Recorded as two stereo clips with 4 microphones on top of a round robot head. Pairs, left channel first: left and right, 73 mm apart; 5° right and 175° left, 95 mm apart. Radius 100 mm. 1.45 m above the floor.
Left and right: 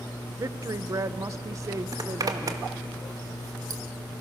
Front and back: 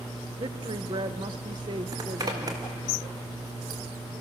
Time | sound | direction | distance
0.4 | a woman speaking | 135° right | 1.0 m
1.9 | a zipper | 125° right | 1.7 m